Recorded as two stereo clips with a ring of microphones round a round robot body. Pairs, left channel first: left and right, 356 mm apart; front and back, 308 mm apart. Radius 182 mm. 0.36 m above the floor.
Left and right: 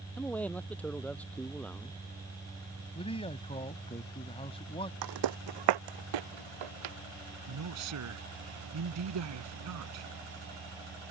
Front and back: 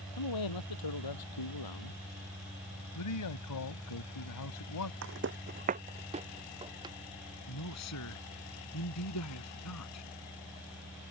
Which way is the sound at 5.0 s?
125° right.